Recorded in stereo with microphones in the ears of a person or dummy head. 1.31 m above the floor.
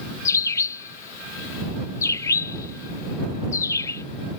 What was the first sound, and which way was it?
A bird, 20° left (ahead or behind).